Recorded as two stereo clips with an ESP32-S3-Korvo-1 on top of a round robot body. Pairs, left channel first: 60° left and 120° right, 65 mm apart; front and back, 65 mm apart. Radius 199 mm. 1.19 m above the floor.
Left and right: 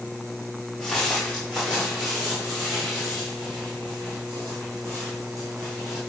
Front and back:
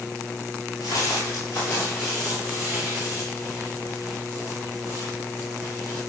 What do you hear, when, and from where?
0.8 s footsteps: 20° right, 1.5 m; by 6.0 s 145° right, 3 m